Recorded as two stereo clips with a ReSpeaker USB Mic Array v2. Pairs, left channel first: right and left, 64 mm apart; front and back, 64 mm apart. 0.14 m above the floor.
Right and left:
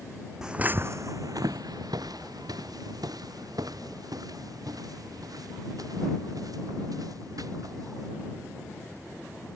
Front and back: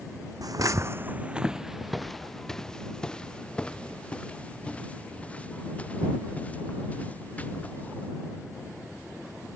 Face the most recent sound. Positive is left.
turn(degrees=70)